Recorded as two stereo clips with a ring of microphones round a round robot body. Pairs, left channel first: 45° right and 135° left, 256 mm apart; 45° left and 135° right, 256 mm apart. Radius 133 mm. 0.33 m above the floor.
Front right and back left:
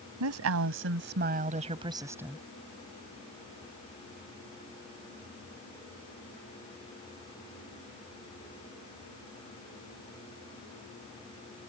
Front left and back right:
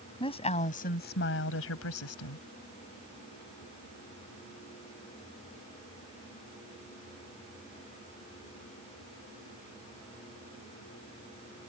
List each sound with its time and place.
0.2 s a woman speaking: 115° left; by 2.4 s 45° left